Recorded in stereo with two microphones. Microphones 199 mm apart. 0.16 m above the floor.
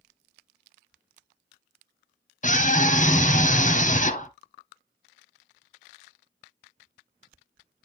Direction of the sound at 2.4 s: 40° left (ahead or behind).